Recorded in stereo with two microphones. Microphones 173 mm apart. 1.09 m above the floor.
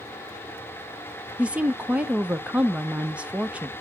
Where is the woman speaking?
5° right (ahead or behind), 0.6 m.